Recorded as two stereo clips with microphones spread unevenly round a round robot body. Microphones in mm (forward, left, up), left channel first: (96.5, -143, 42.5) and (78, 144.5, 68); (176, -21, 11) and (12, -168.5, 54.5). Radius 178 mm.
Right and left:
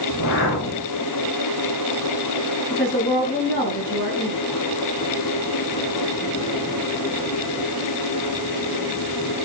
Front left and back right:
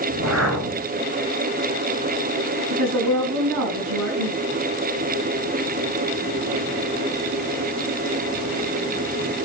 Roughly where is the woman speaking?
Behind.